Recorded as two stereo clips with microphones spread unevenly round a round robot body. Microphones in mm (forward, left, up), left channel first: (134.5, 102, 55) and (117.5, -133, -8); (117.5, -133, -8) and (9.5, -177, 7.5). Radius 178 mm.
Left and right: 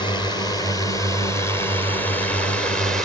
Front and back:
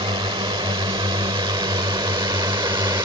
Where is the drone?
170° left; by 3.1 s 160° right.